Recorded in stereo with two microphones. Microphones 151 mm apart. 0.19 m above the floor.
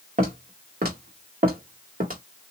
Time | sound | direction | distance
0.2 | footsteps | 70° right (ahead or behind) | 1.5 m